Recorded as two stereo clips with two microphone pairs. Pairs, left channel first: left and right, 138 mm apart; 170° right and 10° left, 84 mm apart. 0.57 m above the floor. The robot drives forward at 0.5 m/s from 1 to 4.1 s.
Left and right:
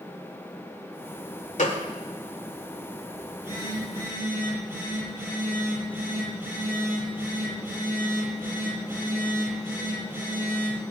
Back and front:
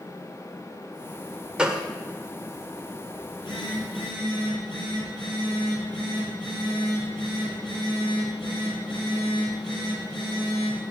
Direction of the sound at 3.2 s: 160° right.